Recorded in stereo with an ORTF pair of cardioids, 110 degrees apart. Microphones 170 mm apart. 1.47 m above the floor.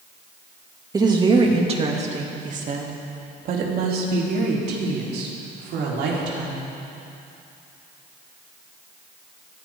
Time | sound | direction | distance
0.9 | a woman speaking | 20° right | 2.5 m